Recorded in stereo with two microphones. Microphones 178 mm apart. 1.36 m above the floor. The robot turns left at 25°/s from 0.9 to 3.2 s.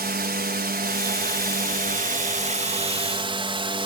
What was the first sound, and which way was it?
A drone, 90° right.